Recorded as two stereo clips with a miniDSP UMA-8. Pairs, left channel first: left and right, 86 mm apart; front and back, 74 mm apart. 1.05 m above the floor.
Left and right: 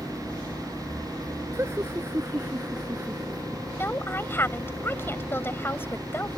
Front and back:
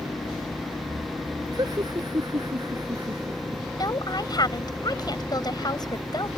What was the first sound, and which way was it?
Laughter, 150° right.